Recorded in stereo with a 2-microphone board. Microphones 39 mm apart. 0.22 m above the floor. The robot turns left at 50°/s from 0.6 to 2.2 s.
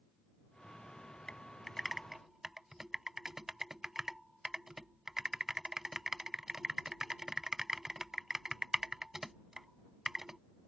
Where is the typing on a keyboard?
20° left (ahead or behind); by 10.4 s 10° right (ahead or behind).